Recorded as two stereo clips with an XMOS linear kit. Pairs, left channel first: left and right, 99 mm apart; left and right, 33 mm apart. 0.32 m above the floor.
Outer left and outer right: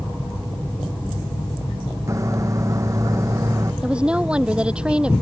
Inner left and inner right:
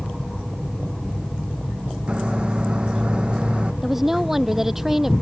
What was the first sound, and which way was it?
A microwave, 35° right (ahead or behind).